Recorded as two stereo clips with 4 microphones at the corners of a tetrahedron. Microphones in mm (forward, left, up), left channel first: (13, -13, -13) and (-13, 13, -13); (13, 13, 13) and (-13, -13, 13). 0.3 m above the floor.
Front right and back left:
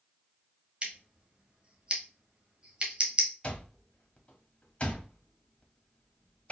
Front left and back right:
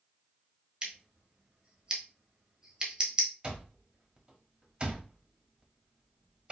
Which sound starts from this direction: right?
An alarm clock, at 3.4 s.